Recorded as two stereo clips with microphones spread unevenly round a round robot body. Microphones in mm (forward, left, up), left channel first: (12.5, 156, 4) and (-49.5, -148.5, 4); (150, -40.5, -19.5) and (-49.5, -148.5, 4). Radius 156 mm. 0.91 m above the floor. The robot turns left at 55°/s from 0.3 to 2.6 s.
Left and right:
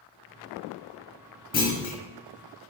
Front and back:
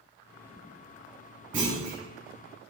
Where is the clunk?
140° left, 1.9 m; by 2.0 s 115° left, 1.9 m.